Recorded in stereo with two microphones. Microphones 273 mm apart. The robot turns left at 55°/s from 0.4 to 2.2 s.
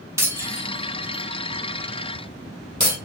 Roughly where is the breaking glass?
Centre.